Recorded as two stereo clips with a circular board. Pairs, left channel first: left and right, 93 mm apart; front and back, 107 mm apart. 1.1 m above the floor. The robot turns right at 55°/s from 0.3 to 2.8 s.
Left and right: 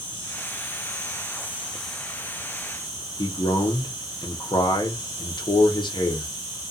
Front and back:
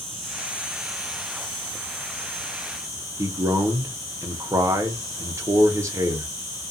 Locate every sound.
0.0 s an insect: 85° right, 1.6 m; by 6.7 s 55° left, 1.6 m
3.2 s a man speaking: 120° left, 0.9 m